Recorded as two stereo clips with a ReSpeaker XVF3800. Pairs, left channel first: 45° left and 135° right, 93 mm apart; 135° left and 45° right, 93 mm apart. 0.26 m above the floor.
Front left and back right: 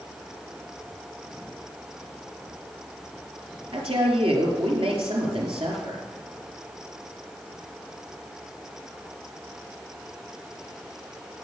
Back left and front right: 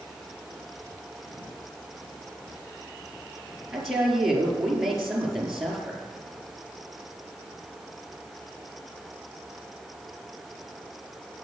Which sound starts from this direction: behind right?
A woman speaking, at 3.7 s.